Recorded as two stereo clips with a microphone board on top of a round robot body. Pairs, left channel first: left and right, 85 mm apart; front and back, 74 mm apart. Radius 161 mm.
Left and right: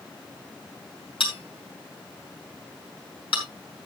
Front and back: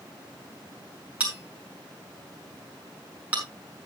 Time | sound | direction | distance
1.2 | a bell | 110° left | 5.5 m